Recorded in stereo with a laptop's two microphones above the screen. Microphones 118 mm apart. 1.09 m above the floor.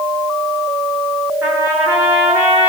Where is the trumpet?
15° right (ahead or behind), 8 m.